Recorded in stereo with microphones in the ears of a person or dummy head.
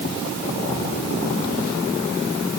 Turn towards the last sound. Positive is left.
No sound to turn to.